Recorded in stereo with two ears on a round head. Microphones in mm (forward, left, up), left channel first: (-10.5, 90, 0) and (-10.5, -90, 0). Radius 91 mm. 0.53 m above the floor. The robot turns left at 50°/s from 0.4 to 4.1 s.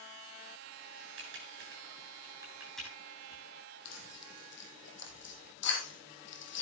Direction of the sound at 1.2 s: 75° right (ahead or behind).